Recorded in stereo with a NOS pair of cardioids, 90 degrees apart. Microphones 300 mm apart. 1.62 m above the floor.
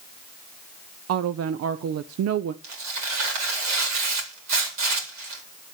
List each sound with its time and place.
1.1 s a woman speaking: 55° right, 0.8 m
2.6 s tearing paper: 65° right, 4 m